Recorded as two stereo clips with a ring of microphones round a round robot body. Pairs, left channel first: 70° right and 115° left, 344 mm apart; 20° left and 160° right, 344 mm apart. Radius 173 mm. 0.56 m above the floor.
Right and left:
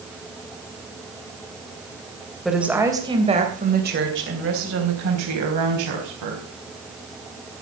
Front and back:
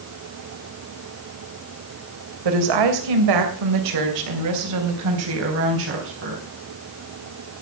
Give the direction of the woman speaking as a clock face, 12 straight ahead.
5 o'clock.